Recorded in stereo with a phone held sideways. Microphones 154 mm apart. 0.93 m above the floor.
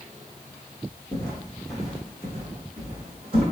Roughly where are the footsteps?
Left.